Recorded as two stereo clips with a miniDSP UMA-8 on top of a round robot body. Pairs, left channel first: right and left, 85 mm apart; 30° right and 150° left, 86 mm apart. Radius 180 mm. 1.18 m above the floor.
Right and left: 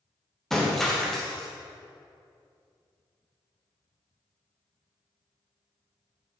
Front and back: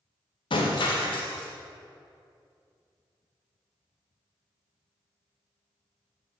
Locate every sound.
0.5 s breaking glass: 5° right, 0.8 m